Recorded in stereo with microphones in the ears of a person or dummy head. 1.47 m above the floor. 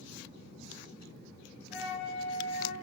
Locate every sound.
1.7 s a flute: 75° left (ahead or behind), 1.8 m